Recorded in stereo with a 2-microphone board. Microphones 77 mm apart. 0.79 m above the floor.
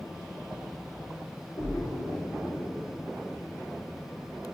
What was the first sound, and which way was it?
A splash, 25° left (ahead or behind).